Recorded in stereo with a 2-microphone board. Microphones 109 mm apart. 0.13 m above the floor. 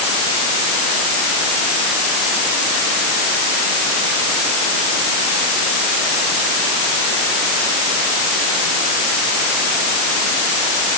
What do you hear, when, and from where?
Only background noise.